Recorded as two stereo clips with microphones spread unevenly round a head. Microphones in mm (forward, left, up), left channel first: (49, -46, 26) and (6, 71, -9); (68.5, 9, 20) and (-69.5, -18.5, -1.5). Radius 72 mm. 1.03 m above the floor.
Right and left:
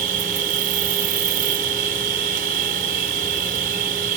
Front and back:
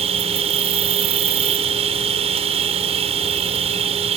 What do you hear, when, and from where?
0.0 s an insect: 140° left